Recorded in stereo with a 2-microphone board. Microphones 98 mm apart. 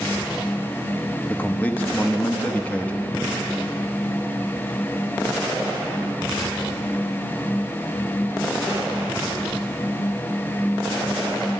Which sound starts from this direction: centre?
A man speaking, at 1.3 s.